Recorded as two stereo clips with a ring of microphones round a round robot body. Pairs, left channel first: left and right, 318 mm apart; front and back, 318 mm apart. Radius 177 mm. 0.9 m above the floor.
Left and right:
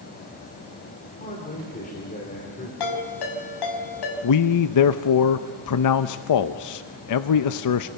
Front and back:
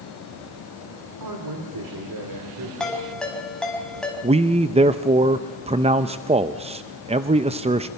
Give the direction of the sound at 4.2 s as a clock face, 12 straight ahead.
8 o'clock.